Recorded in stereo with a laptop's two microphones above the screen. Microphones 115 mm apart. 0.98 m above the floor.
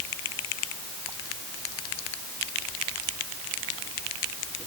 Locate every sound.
Only background noise.